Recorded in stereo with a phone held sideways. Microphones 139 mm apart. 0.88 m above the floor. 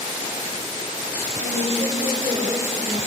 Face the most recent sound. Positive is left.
turn(degrees=-40)  # may be behind; listen again after turning